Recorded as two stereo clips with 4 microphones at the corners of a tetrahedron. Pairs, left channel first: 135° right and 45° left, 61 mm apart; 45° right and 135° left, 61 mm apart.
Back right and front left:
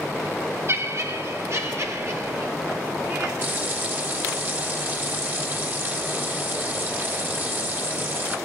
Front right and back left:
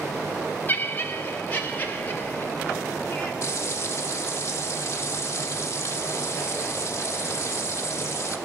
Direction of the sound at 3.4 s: 5° right.